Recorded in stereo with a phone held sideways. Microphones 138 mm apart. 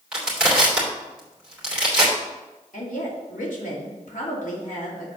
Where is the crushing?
5° right (ahead or behind), 3 m.